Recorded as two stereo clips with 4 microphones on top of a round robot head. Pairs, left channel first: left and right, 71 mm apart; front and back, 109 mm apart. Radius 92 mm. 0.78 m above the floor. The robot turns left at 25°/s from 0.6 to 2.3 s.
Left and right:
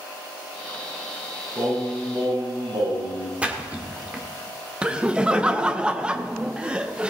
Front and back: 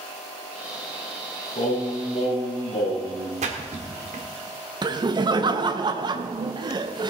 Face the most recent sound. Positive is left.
turn(degrees=-160)